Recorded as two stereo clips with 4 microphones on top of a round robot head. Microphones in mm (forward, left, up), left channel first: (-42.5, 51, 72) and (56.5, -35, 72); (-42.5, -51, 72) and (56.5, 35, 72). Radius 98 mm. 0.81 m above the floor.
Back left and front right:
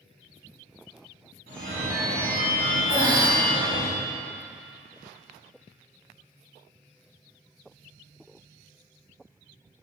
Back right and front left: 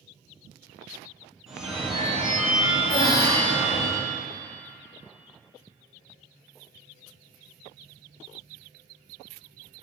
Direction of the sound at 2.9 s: 95° right.